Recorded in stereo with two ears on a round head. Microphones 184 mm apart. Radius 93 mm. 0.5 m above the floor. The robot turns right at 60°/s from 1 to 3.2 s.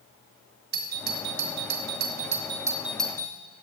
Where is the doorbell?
55° right (ahead or behind), 3.5 m; by 3.4 s 15° left (ahead or behind), 3.5 m.